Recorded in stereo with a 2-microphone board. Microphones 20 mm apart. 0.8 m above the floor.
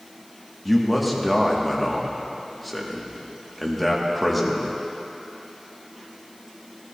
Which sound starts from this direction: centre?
A man speaking, at 0.7 s.